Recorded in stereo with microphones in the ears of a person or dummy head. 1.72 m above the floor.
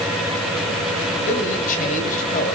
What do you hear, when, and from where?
1.2 s a man speaking: 45° left (ahead or behind), 8 m